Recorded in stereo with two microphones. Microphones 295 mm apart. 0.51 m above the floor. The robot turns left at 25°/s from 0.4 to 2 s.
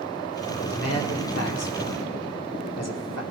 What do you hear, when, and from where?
0.6 s a man speaking: 50° left (ahead or behind), 1.4 m; by 3.2 s 60° left (ahead or behind), 1.4 m